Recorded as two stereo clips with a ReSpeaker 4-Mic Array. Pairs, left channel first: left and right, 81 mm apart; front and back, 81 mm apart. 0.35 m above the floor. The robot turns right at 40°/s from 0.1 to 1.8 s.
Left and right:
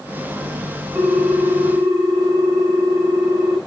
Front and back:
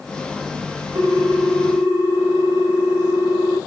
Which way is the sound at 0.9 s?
155° right.